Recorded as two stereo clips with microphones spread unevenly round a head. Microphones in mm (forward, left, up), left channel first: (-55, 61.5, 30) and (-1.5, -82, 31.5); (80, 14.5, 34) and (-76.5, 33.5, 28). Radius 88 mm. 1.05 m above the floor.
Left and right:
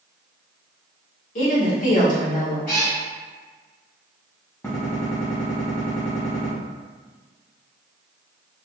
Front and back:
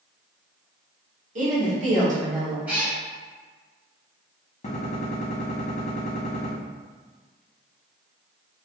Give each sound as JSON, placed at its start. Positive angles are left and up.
{"t": 1.4, "sound": "a woman speaking", "azimuth_deg": 140, "distance_m": 1.4}
{"t": 2.7, "sound": "a cat meowing", "azimuth_deg": 95, "distance_m": 1.3}
{"t": 4.6, "sound": "a gunshot", "azimuth_deg": 35, "distance_m": 1.0}